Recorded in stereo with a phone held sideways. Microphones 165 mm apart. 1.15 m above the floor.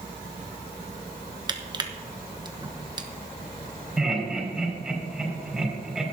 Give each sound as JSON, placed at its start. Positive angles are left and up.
{"t": 1.5, "sound": "crushing", "side_deg": -25, "distance_m": 1.0}
{"t": 4.0, "sound": "laughter", "side_deg": 0, "distance_m": 5.5}